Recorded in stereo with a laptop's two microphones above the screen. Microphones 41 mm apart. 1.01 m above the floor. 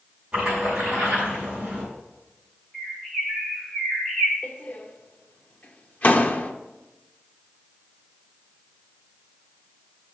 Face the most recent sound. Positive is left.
turn(degrees=45)  # may be behind; listen again after turning